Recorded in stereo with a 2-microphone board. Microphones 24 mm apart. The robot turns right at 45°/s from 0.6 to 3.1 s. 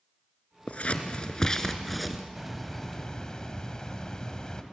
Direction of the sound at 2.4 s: 5° right.